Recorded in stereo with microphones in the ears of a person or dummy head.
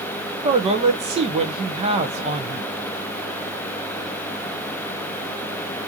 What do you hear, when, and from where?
0.4 s a man speaking: 30° right (ahead or behind), 1.1 m